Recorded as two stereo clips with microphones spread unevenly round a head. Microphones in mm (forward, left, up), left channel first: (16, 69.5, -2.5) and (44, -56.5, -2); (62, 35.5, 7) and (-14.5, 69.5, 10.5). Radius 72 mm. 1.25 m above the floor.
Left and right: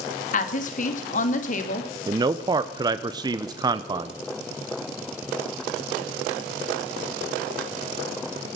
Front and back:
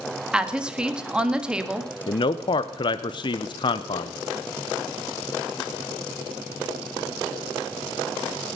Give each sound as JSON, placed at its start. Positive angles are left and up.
{"t": 0.3, "sound": "a woman speaking", "azimuth_deg": 75, "distance_m": 1.9}
{"t": 2.1, "sound": "a man speaking", "azimuth_deg": -20, "distance_m": 0.7}